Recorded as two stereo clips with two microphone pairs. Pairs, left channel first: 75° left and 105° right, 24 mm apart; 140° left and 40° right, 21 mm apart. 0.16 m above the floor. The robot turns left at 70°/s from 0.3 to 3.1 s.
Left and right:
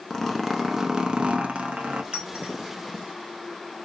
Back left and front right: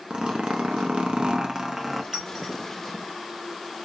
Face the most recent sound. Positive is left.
turn(degrees=-145)